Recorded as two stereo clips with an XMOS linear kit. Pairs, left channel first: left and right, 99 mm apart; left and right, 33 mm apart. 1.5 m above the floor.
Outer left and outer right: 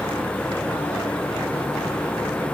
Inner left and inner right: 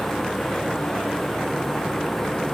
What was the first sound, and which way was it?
Only background noise.